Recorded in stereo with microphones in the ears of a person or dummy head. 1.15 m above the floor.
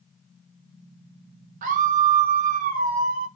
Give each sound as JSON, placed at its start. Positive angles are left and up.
{"t": 1.6, "sound": "a scream", "side_deg": -45, "distance_m": 0.8}